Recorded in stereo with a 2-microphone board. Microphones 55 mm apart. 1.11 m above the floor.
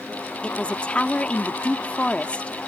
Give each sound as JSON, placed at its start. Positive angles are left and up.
{"t": 0.4, "sound": "a man speaking", "side_deg": 20}